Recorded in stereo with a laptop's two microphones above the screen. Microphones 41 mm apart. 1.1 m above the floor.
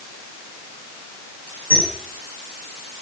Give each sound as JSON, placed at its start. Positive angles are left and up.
{"t": 1.7, "sound": "a squeak", "side_deg": 70, "distance_m": 7.0}